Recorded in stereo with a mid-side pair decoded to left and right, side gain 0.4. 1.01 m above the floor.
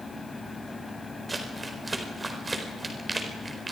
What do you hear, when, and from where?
0.0 s a fan: 25° left, 2.5 m
1.3 s crumpling: 25° right, 4.5 m